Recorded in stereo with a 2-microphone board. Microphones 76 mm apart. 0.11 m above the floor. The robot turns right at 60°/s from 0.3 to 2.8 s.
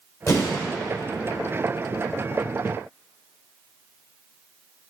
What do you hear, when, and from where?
0.3 s an explosion: 40° left (ahead or behind), 1.8 m; by 0.6 s 25° left (ahead or behind), 1.8 m